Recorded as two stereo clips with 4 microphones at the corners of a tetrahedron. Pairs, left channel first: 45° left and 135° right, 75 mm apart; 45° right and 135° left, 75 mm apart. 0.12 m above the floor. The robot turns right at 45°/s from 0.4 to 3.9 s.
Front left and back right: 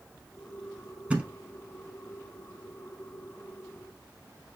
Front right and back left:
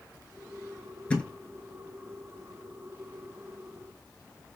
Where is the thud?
90° right, 0.6 m; by 1.3 s 80° right, 0.6 m.